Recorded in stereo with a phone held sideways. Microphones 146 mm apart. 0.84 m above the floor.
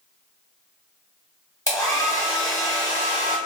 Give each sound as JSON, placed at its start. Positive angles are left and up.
{"t": 1.7, "sound": "a hair dryer", "side_deg": 20, "distance_m": 1.2}